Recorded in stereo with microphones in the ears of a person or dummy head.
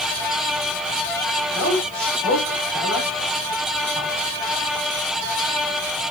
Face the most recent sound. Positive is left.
turn(degrees=5)  # may be behind; listen again after turning